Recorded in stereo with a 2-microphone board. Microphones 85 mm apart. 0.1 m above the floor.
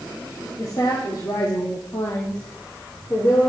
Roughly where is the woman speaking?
Left.